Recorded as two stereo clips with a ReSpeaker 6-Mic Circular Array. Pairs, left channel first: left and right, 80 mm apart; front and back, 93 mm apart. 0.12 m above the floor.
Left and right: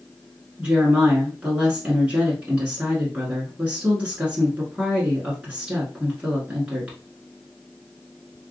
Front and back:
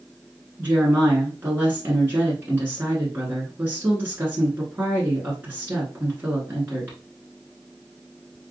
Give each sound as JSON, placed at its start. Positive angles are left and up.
{"t": 0.6, "sound": "a woman speaking", "azimuth_deg": -150, "distance_m": 1.2}